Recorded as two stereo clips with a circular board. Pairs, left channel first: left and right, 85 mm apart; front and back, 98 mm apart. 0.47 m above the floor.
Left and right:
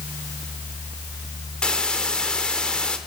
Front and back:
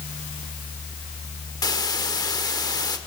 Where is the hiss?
15° left, 1.3 m.